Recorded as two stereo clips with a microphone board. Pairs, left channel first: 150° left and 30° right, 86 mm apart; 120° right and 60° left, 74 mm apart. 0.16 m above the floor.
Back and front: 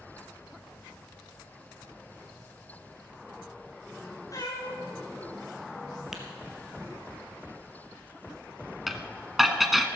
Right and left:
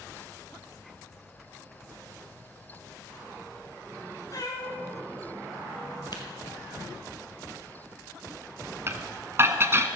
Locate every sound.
4.3 s a cat meowing: 160° right, 3.5 m; by 6.0 s 175° right, 4 m
6.1 s tapping: 115° right, 2 m
8.9 s dishes clattering: 60° left, 0.9 m